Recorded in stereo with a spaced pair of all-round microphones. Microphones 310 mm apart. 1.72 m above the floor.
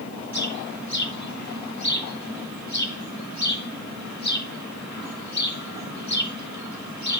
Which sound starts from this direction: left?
A bird, at 0.3 s.